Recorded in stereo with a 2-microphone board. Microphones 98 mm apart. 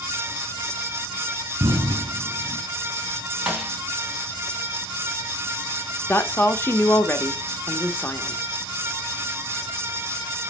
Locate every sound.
1.6 s an explosion: 65° right (ahead or behind), 1.7 m
3.5 s a snare drum: 10° right (ahead or behind), 1.9 m
6.1 s a woman speaking: 25° left (ahead or behind), 1.1 m